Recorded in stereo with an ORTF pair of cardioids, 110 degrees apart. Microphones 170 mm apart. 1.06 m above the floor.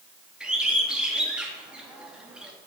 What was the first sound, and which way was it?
A bird, 5° right.